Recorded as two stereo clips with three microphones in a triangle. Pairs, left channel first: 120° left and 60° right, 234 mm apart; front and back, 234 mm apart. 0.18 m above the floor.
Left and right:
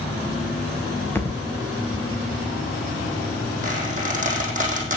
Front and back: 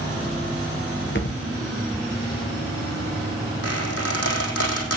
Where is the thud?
40° left, 2.5 m.